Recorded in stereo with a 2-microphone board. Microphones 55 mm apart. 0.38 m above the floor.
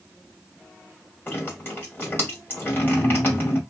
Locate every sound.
1.3 s dripping: 35° left (ahead or behind), 1.7 m